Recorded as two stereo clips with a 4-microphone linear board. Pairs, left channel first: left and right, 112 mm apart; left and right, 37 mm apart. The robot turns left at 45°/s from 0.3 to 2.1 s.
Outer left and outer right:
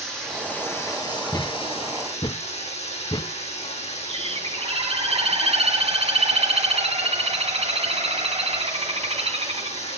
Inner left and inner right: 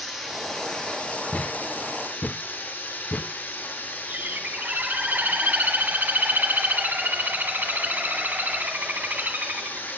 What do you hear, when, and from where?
0.0 s running water: 175° left, 7.5 m; by 10.0 s 95° left, 7.5 m
1.3 s a thud: 30° left (ahead or behind), 0.5 m; by 3.3 s 40° left (ahead or behind), 0.5 m
4.1 s a bird: 65° right (ahead or behind), 2.5 m